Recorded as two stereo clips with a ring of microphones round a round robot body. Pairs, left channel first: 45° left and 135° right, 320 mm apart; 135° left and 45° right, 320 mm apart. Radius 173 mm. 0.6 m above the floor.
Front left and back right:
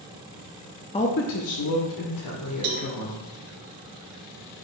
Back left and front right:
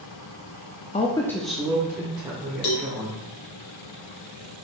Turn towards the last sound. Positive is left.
turn(degrees=170)